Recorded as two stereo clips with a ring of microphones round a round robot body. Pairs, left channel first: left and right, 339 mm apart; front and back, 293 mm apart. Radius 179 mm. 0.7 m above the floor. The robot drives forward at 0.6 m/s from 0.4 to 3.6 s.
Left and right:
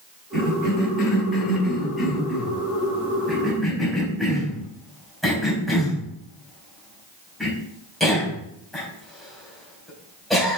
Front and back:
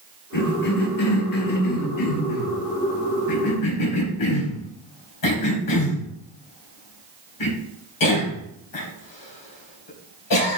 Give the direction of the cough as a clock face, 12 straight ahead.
12 o'clock.